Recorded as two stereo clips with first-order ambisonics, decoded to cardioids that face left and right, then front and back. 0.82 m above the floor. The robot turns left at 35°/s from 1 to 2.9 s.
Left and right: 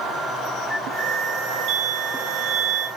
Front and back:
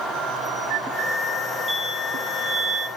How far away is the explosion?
About 2.0 m.